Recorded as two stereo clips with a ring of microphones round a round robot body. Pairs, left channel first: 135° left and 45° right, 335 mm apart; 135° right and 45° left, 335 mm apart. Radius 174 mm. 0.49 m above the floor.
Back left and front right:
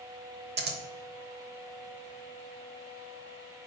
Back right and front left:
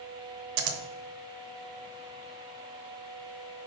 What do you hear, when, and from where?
0.6 s scissors: 20° left, 1.0 m